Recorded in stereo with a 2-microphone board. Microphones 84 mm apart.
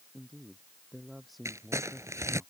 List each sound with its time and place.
0.1 s a man speaking: centre (ahead or behind)
1.4 s crumpling: 35° right (ahead or behind)